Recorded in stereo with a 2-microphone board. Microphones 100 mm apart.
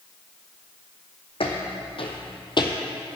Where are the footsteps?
65° left (ahead or behind), 1.9 m; by 2.8 s 40° left (ahead or behind), 1.1 m.